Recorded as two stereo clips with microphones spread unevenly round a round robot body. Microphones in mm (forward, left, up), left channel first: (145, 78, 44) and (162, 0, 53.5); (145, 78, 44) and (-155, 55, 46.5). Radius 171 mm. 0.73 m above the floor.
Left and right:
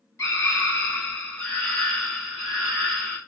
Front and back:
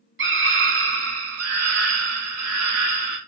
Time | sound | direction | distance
0.2 | a scream | 140° left | 1.6 m